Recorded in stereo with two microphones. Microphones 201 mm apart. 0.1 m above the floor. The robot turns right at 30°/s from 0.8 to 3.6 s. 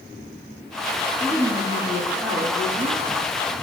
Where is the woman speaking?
170° right, 3.5 m; by 3.0 s 115° right, 3.5 m.